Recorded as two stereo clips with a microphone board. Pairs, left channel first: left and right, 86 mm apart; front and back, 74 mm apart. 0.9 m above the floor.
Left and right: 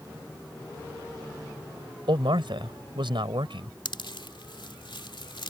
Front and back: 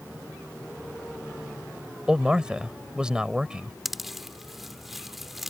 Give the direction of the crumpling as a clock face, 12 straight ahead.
I don't hear crumpling.